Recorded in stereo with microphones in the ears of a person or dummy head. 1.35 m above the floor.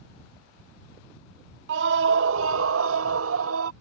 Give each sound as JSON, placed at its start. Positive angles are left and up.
{"t": 1.7, "sound": "a scream", "side_deg": -70}